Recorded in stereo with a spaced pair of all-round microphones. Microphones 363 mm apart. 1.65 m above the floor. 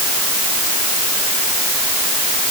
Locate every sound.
Only background noise.